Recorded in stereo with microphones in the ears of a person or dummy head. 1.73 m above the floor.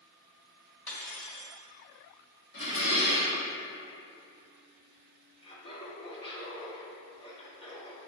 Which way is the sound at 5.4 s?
35° left (ahead or behind).